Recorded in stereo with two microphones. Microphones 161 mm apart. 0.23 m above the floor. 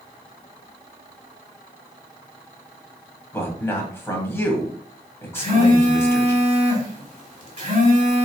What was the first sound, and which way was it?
A man speaking, 15° left (ahead or behind).